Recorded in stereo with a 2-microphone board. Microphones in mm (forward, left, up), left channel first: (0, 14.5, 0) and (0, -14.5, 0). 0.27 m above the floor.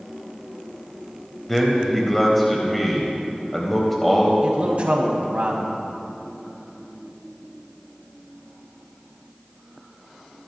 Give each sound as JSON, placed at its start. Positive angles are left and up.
{"t": 1.5, "sound": "a man speaking", "side_deg": 5, "distance_m": 1.1}
{"t": 4.4, "sound": "a man speaking", "side_deg": -50, "distance_m": 1.8}